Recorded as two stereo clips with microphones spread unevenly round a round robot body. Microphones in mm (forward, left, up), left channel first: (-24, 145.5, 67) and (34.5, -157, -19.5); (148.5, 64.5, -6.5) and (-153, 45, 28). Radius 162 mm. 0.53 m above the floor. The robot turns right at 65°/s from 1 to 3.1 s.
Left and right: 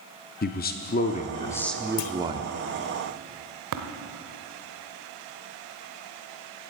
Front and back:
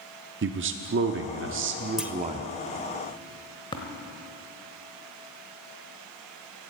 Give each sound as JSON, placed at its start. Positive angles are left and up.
{"t": 0.4, "sound": "a man speaking", "azimuth_deg": 165, "distance_m": 0.7}
{"t": 2.0, "sound": "a clunk", "azimuth_deg": 95, "distance_m": 0.8}
{"t": 3.7, "sound": "tapping", "azimuth_deg": -70, "distance_m": 1.2}